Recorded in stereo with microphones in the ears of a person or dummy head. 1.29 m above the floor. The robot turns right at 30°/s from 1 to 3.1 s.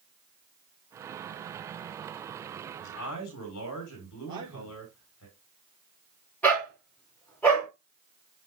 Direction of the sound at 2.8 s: 80° left.